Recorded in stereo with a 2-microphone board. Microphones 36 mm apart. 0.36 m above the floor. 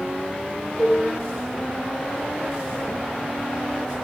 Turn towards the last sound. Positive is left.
turn(degrees=15)  # may be behind; listen again after turning